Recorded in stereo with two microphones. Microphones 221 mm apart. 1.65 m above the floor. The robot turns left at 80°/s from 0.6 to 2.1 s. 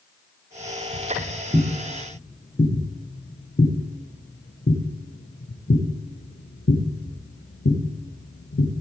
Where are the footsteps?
60° right (ahead or behind), 3.5 m; by 8.8 s 70° left (ahead or behind), 4.5 m.